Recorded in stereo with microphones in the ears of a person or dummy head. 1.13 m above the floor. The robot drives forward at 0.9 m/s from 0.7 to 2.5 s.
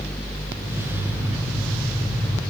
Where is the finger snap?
I don't hear a finger snap.